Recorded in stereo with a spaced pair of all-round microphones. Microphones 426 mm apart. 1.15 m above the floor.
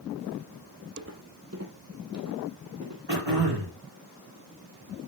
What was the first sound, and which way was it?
Footsteps, 30° right (ahead or behind).